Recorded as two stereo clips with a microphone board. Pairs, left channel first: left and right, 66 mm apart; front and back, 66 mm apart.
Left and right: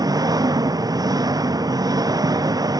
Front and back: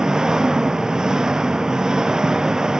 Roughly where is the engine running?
Right.